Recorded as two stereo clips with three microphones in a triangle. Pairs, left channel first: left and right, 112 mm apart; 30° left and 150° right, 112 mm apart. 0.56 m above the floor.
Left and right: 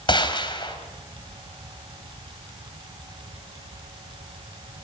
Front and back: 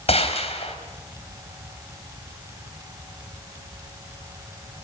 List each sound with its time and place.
0.1 s a gunshot: 45° left, 3.5 m